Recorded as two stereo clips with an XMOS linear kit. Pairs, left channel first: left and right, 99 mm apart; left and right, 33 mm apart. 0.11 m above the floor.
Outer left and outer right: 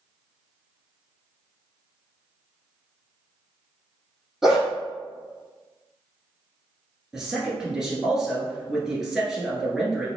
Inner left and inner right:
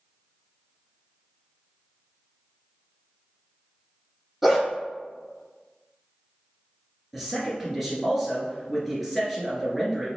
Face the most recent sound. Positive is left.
turn(degrees=-5)  # may be behind; listen again after turning